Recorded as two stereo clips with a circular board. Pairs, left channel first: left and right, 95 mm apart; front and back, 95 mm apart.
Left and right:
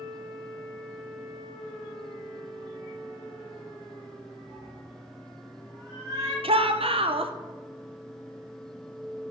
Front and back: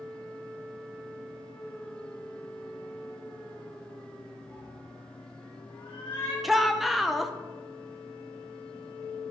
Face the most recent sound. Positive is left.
turn(degrees=-90)